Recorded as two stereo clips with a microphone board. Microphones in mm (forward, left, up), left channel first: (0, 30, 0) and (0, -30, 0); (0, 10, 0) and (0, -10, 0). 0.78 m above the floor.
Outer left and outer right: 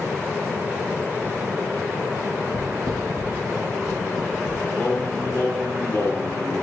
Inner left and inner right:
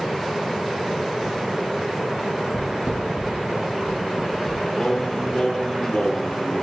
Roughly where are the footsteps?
Right.